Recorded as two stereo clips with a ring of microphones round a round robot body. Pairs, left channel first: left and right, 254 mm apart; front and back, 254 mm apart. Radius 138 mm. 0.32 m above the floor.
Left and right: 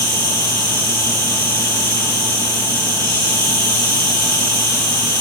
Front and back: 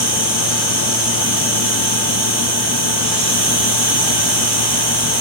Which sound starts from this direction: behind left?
An insect, at 0.0 s.